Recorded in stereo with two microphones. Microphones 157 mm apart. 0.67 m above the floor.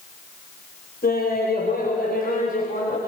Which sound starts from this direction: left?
Laughter, at 1.0 s.